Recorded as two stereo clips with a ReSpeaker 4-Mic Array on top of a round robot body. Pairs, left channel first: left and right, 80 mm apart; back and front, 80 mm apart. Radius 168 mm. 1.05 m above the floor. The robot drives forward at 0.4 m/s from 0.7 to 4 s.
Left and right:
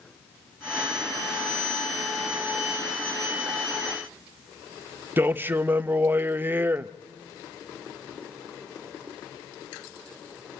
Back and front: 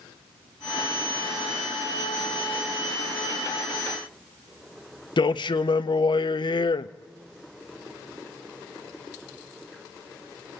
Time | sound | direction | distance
5.2 | a man speaking | 155° right | 0.5 m